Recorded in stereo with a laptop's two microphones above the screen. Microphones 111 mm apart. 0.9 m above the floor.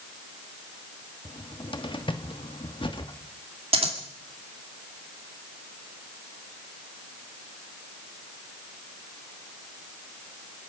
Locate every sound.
1.2 s a cupboard door: 50° left (ahead or behind), 1.3 m
3.7 s scissors: 65° right (ahead or behind), 2 m